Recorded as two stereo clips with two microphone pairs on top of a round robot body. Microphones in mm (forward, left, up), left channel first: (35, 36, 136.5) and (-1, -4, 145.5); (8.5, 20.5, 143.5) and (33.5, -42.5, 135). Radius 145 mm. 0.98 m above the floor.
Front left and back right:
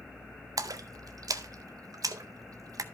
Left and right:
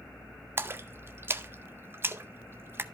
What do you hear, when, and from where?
0.6 s a splash: 125° right, 0.7 m